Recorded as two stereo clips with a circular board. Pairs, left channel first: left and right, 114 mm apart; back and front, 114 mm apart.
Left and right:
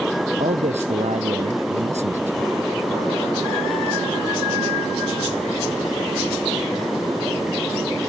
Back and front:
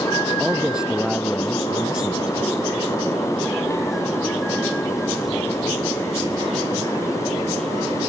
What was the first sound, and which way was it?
A man speaking, 85° right.